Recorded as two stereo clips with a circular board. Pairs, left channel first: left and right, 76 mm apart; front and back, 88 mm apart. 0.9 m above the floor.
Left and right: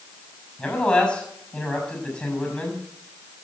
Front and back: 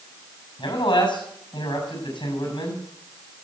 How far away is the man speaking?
About 6.5 m.